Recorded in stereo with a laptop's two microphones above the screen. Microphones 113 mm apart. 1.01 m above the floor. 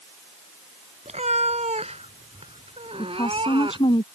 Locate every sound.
1.1 s a cat meowing: 80° right; by 4.0 s 45° right (ahead or behind)
3.0 s a woman speaking: 45° left (ahead or behind)